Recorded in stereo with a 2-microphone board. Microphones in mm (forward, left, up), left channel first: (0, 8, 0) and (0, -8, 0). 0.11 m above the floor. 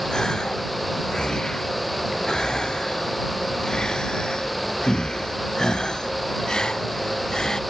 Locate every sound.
0.1 s a gasp: 50° left (ahead or behind)